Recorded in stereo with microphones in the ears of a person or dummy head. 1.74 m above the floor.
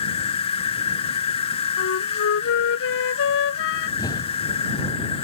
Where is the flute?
70° left (ahead or behind).